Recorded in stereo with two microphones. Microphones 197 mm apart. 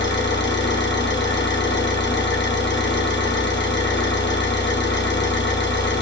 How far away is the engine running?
About 1.1 m.